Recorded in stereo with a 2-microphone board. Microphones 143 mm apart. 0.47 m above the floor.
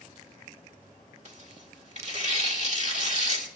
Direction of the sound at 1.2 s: 55° right (ahead or behind).